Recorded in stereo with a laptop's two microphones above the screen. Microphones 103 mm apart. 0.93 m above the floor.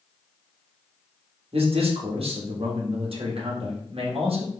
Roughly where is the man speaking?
Right.